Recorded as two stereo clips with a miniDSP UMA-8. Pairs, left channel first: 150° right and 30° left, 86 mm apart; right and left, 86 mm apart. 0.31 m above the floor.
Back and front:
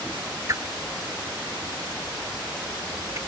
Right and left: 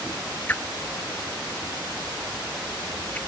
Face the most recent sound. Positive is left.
turn(degrees=-20)